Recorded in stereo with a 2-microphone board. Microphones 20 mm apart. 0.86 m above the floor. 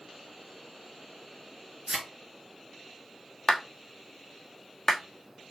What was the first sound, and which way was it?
A thud, 45° right (ahead or behind).